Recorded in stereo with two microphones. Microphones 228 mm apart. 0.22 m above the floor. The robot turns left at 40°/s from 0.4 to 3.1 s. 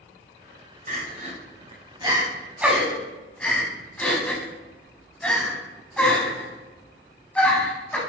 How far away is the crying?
About 0.9 m.